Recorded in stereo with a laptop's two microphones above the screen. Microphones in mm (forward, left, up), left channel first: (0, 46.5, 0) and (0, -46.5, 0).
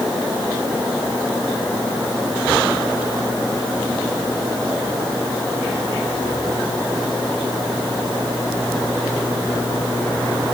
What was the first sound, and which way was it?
Only background noise.